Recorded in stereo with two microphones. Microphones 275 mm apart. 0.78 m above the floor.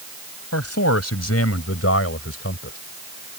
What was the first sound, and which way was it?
A man speaking, 65° left (ahead or behind).